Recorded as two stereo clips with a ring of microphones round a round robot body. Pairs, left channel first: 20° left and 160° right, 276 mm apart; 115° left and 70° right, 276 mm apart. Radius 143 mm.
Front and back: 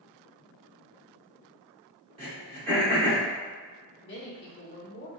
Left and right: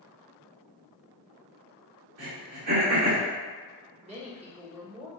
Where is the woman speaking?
5° right, 1.1 m.